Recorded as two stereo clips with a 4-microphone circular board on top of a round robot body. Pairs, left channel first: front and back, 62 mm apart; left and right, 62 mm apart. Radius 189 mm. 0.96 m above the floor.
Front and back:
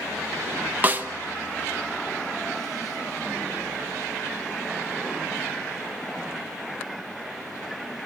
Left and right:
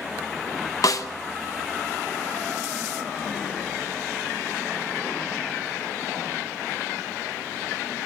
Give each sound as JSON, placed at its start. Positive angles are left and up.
{"t": 0.8, "sound": "a snare drum", "azimuth_deg": 115, "distance_m": 1.4}